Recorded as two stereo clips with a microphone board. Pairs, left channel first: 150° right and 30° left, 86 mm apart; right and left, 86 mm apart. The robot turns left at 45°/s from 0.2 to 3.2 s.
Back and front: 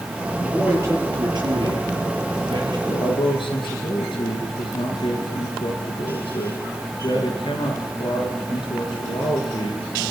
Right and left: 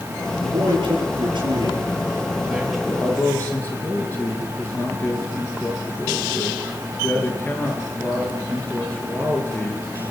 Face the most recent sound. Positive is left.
turn(degrees=-160)